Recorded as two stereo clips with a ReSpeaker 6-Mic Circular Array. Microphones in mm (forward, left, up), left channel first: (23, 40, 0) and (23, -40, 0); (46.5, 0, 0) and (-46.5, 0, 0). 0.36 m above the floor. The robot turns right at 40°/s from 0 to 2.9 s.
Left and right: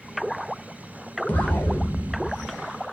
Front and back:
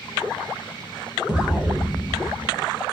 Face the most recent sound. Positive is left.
turn(degrees=175)